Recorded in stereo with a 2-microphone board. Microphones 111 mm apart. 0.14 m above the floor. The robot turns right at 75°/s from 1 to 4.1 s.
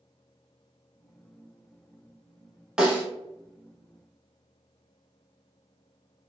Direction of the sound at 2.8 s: 5° right (ahead or behind).